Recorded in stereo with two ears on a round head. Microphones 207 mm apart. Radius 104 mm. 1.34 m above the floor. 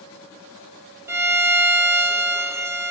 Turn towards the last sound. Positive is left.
turn(degrees=-10)  # may be behind; listen again after turning